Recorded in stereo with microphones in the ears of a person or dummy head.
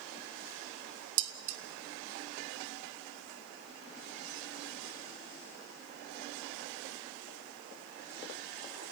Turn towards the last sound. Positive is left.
turn(degrees=-65)  # may be behind; listen again after turning